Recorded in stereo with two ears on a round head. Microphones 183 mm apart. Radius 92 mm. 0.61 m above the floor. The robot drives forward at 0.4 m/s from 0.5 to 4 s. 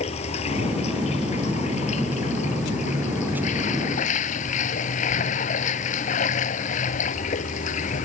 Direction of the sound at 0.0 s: 30° left (ahead or behind).